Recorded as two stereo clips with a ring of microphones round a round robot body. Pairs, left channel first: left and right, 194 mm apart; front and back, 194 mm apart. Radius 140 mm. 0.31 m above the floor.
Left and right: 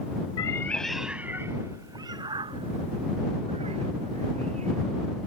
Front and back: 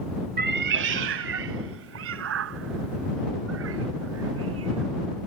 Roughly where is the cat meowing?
Behind left.